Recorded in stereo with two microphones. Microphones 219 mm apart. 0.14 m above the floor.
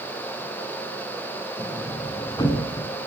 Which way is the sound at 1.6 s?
20° left (ahead or behind).